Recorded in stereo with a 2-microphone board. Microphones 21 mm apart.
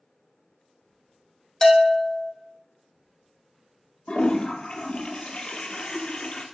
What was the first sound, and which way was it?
A bell, 20° left (ahead or behind).